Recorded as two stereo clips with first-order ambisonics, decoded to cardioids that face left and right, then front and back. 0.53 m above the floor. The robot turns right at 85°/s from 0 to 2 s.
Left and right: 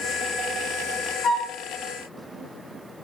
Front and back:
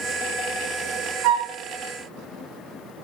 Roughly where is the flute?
Behind left.